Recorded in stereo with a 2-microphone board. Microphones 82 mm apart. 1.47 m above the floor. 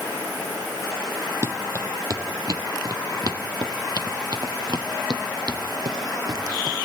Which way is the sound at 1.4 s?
40° right (ahead or behind).